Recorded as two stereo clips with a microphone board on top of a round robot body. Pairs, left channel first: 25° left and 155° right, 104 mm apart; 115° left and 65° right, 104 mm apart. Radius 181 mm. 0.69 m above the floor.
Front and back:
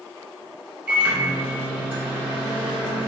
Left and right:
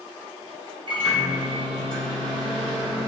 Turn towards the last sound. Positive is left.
turn(degrees=-85)